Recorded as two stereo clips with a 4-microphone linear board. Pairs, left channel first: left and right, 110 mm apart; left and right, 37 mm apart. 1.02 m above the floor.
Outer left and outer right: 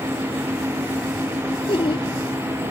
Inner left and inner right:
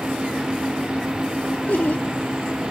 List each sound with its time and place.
1.7 s laughter: 60° left (ahead or behind)